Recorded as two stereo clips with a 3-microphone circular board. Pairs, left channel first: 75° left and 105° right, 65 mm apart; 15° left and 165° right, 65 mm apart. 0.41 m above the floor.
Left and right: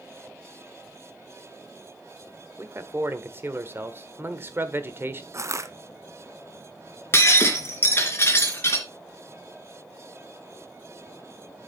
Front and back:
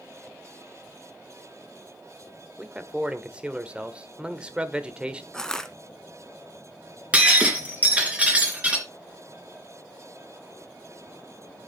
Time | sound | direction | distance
2.6 | a man speaking | 100° right | 1.2 m
5.3 | crushing | 65° right | 0.8 m
7.1 | breaking glass | 125° left | 2.5 m